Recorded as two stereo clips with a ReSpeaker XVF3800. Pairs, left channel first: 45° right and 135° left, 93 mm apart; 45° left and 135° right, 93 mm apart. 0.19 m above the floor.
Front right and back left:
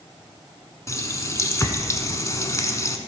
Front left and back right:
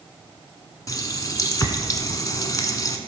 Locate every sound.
0.9 s a running tap: 5° left, 1.0 m